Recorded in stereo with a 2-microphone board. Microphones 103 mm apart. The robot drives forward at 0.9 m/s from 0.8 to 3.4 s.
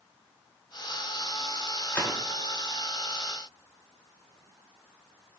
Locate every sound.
1.9 s a gunshot: 25° left (ahead or behind), 1.3 m; by 2.2 s 20° left (ahead or behind), 1.5 m